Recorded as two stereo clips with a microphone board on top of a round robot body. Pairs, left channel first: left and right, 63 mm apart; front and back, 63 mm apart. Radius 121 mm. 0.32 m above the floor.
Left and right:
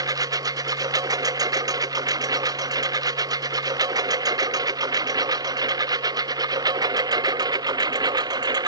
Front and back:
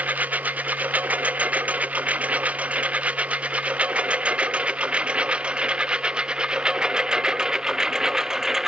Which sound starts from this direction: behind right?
A lawn mower, at 0.0 s.